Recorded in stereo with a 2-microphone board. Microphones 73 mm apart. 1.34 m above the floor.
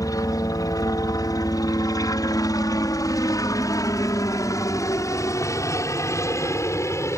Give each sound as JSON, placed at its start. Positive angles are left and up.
{"t": 0.0, "sound": "a helicopter", "side_deg": 60}